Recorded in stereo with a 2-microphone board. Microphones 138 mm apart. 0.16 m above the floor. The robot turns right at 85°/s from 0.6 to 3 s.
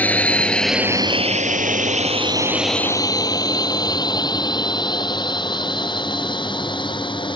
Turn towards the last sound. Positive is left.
turn(degrees=35)  # may be behind; listen again after turning